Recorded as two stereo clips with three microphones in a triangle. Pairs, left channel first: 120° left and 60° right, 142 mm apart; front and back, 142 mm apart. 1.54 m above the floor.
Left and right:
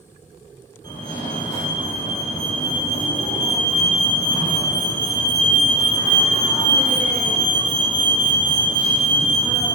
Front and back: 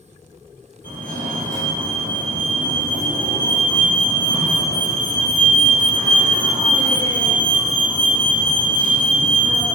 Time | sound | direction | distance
0.8 | a fire alarm | straight behind | 3 m